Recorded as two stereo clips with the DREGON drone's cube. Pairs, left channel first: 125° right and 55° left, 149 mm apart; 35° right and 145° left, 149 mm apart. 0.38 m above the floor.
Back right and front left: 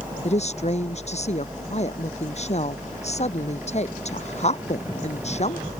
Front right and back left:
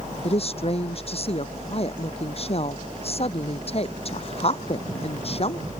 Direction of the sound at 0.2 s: 80° right.